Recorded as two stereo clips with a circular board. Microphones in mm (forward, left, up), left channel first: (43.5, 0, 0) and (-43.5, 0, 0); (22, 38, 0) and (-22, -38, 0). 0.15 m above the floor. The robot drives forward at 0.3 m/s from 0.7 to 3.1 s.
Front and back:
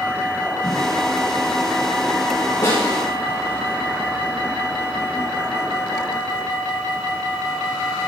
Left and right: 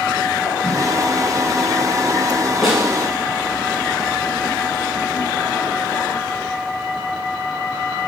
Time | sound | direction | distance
0.6 | a whoosh | 25° right | 4.5 m
2.6 | a snare drum | 35° right | 4.5 m